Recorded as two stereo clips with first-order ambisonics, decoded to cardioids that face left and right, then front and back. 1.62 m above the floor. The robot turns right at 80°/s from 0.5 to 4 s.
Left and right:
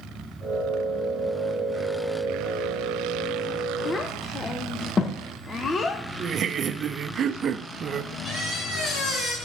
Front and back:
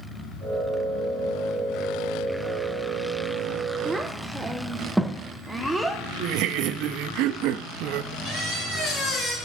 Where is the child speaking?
85° left, 0.5 m; by 6.0 s 95° left, 0.5 m.